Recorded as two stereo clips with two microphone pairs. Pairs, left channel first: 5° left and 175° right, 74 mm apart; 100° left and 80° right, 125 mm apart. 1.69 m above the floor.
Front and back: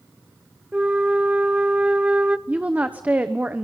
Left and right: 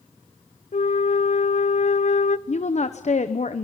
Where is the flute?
115° left, 0.6 m.